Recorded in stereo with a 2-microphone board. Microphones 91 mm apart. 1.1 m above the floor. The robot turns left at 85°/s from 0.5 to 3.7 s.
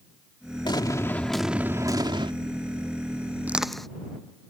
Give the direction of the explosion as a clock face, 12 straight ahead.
10 o'clock.